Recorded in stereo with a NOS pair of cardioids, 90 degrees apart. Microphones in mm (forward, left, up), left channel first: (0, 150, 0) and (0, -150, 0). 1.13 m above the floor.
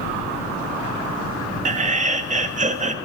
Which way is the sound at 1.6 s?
25° right.